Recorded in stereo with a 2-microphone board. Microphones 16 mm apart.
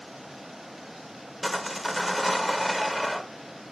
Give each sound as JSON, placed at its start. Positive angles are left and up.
{"t": 1.4, "sound": "sawing", "side_deg": -5, "distance_m": 1.3}